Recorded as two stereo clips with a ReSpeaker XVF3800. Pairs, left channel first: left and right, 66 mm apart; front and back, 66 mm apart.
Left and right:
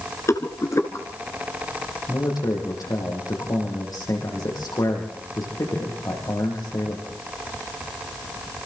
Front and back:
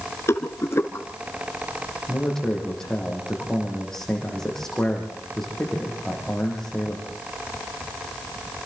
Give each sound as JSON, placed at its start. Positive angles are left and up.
{"t": 0.3, "sound": "a rattle", "azimuth_deg": 45, "distance_m": 2.0}
{"t": 2.1, "sound": "a man speaking", "azimuth_deg": 80, "distance_m": 9.0}